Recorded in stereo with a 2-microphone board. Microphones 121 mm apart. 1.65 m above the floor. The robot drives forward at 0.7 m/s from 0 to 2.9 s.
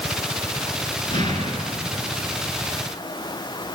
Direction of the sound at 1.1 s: 40° left (ahead or behind).